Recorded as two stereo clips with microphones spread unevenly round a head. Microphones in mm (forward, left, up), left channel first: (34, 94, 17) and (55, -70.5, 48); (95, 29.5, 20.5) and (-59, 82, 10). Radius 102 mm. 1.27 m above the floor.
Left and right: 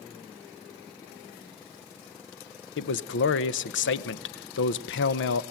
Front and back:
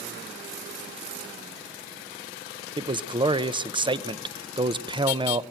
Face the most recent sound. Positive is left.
turn(degrees=100)